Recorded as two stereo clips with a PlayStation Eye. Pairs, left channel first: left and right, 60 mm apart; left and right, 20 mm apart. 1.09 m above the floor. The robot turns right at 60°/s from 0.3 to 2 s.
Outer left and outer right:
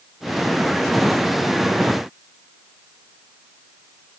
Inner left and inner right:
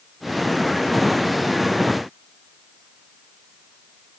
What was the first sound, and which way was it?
Only background noise.